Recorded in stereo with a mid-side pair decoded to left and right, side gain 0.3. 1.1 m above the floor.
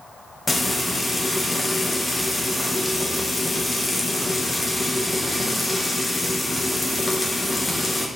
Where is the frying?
35° left, 0.8 m.